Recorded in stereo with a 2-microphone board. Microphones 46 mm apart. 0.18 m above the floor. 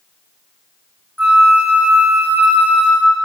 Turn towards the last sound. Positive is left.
turn(degrees=-40)  # may be behind; listen again after turning